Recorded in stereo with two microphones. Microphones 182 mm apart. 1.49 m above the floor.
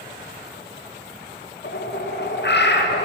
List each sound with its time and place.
1.6 s a bird: 70° left (ahead or behind), 0.7 m